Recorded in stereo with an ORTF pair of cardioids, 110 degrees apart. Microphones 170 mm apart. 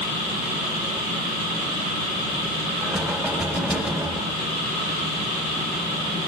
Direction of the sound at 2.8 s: Straight ahead.